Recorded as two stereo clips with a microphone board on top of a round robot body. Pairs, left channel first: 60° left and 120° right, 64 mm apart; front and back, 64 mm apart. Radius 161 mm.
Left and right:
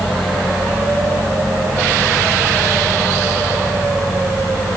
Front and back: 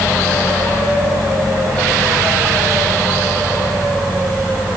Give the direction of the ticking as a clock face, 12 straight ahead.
No ticking in this recording.